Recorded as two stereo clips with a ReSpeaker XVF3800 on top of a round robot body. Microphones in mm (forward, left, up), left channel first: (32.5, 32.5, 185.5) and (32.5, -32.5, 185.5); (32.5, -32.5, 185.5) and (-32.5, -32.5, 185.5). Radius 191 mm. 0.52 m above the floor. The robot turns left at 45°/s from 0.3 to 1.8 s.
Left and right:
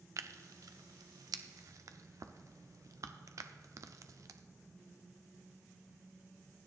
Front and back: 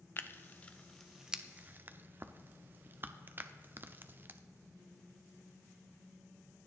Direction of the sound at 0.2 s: 55° right.